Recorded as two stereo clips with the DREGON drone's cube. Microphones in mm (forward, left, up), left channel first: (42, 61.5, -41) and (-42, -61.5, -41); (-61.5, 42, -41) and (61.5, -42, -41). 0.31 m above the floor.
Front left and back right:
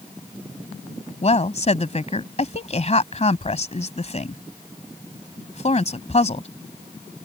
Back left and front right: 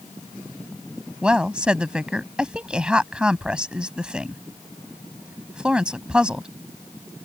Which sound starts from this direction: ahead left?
A woman speaking, at 1.2 s.